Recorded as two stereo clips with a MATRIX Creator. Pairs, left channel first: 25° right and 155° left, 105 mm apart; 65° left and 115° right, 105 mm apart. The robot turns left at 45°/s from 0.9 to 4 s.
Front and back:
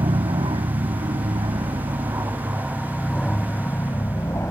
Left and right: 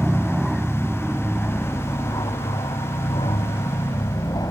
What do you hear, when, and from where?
0.0 s an aircraft: 160° left; by 4.5 s 30° left